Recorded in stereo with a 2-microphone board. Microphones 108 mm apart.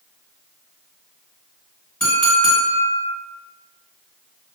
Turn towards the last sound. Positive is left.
turn(degrees=10)  # may be behind; listen again after turning